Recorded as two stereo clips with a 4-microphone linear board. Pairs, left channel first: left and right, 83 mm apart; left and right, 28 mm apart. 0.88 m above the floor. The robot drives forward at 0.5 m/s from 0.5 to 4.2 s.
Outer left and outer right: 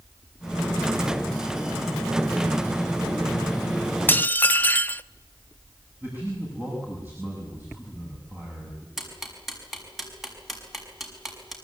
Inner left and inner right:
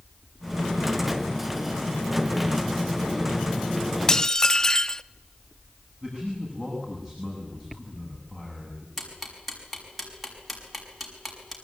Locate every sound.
4.1 s dishes clattering: 25° left (ahead or behind), 0.5 m; by 5.0 s 20° left (ahead or behind), 0.6 m
6.0 s a man speaking: 20° right (ahead or behind), 7 m
9.0 s ticking: centre (ahead or behind), 5.5 m